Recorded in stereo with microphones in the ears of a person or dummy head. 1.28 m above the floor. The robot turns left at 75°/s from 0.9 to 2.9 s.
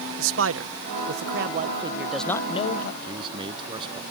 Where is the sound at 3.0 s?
30° right (ahead or behind).